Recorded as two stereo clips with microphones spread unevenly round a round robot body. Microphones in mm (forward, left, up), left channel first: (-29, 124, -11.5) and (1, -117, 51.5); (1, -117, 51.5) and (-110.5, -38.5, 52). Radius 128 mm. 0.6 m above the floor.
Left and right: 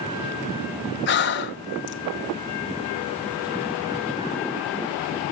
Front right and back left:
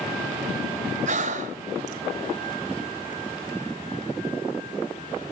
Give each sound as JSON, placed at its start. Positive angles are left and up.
{"t": 1.1, "sound": "breathing", "azimuth_deg": 120, "distance_m": 1.3}